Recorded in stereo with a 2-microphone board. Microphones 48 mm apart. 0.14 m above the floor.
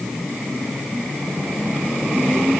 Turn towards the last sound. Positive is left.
No sound to turn to.